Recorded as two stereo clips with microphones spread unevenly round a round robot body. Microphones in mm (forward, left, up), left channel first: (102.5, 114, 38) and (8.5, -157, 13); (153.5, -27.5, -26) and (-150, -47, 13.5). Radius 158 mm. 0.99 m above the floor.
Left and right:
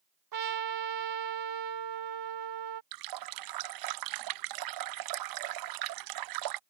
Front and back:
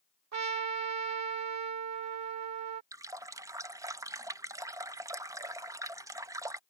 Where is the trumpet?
140° right.